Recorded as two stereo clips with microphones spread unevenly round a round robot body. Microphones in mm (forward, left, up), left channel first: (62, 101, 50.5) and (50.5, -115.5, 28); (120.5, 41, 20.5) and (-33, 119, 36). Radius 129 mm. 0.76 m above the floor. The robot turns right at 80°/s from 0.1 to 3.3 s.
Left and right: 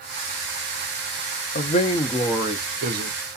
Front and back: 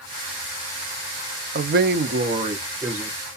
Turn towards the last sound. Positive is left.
turn(degrees=-90)